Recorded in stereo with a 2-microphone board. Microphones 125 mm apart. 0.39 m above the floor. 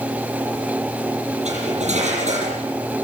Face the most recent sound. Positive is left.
turn(degrees=-65)  # may be behind; listen again after turning